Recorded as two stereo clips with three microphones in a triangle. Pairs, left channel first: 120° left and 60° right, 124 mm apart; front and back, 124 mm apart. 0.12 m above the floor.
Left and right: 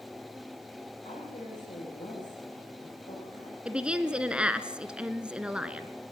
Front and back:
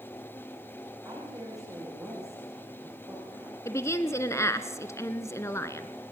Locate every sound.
1.1 s a woman speaking: 120° left, 9.5 m
3.6 s a woman speaking: 10° left, 1.1 m